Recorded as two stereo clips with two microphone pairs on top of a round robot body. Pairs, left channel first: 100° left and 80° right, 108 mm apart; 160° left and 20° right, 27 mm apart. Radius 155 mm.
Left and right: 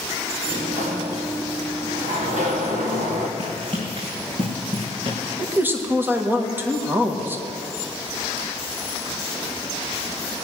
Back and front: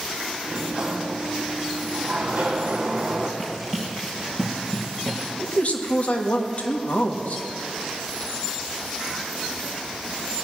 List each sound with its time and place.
0.4 s a sliding door: 70° right, 1.0 m
3.4 s running footsteps: 120° right, 4 m; by 5.2 s 115° right, 5 m
5.4 s a man speaking: 150° right, 1.8 m